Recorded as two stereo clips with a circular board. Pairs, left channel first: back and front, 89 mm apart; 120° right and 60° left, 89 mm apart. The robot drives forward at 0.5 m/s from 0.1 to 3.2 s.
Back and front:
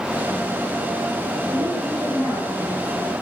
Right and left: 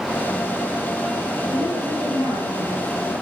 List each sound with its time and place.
1.5 s a woman speaking: 125° right, 6.5 m; by 3.1 s 130° right, 7 m